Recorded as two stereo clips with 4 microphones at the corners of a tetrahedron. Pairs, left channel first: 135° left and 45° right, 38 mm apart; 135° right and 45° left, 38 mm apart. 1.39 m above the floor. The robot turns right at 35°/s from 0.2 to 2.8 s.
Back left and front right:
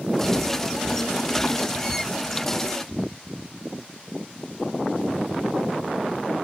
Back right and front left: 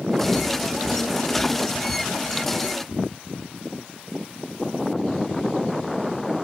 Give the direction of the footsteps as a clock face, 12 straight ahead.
1 o'clock.